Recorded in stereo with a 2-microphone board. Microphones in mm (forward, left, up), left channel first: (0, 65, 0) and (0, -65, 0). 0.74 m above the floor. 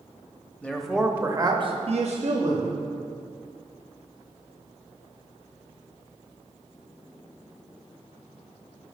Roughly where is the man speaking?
Centre.